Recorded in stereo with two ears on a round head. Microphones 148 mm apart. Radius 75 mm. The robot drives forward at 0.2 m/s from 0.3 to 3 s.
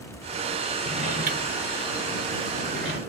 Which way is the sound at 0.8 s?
50° right (ahead or behind).